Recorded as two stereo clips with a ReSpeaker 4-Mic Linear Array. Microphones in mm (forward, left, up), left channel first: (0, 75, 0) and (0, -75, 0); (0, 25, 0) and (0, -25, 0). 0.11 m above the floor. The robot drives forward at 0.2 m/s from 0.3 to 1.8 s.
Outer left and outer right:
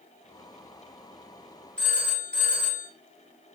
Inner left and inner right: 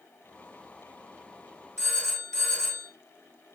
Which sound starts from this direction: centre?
A phone ringing, at 1.8 s.